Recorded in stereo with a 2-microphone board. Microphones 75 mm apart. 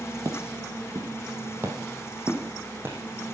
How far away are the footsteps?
About 2 m.